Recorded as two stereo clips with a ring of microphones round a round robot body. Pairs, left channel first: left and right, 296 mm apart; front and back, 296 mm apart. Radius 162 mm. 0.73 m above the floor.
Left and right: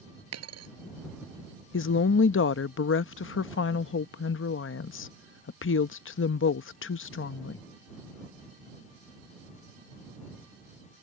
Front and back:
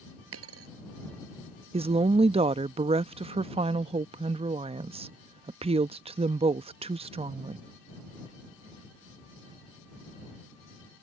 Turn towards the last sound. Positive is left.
turn(degrees=115)